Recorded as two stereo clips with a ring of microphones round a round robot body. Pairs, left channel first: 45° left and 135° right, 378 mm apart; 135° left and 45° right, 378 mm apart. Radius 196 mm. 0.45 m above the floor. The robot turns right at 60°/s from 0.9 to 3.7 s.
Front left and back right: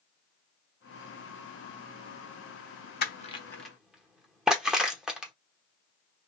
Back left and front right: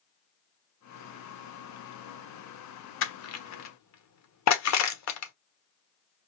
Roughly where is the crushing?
Left.